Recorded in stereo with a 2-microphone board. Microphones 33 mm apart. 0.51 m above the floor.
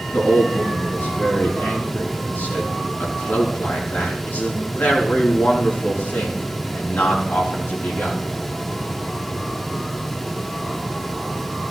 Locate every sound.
0.1 s a man speaking: 80° left, 5.5 m